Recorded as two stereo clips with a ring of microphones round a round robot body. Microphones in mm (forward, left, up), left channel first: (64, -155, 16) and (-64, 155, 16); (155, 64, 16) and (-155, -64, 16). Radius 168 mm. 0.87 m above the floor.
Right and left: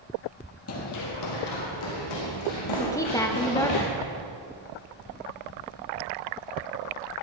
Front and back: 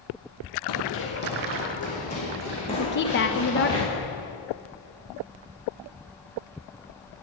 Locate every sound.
0.7 s running footsteps: 20° right, 1.8 m; by 3.8 s 55° right, 6 m
2.8 s a woman speaking: 5° left, 1.0 m